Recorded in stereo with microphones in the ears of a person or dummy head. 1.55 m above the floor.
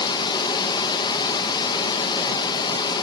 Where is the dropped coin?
No dropped coin in this recording.